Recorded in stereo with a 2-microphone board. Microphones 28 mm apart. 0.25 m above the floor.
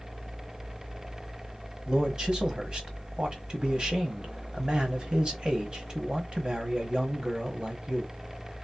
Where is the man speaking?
35° right (ahead or behind), 1.6 m.